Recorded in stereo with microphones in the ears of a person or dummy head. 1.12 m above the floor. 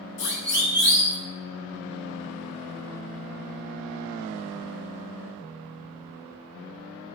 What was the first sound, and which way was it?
A siren, 60° left (ahead or behind).